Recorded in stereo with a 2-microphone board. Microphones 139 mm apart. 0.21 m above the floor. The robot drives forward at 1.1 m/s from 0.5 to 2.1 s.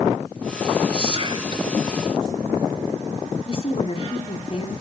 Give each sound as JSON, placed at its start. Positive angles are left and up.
{"t": 0.9, "sound": "whispering", "side_deg": -40, "distance_m": 1.9}
{"t": 3.5, "sound": "a woman speaking", "side_deg": 45, "distance_m": 1.7}